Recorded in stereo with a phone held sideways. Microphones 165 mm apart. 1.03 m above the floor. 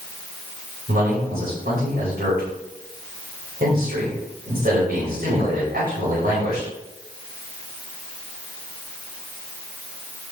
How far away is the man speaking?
About 5 m.